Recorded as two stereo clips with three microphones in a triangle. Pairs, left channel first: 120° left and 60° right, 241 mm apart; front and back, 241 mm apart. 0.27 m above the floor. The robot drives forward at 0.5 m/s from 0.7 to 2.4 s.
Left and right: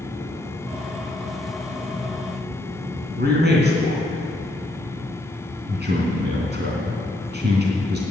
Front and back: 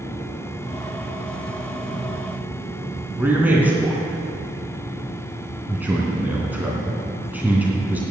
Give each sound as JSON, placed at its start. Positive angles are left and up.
{"t": 3.2, "sound": "a man speaking", "azimuth_deg": -100, "distance_m": 2.5}